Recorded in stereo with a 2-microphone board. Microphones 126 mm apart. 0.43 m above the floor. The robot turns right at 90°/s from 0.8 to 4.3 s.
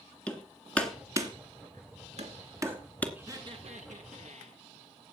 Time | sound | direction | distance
0.3 | hammering | 10° left (ahead or behind) | 2.5 m
3.1 | laughter | 165° right | 4.5 m